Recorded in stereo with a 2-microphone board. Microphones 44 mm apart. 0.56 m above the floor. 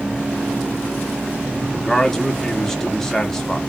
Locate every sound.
1.6 s a man speaking: 10° left (ahead or behind), 0.8 m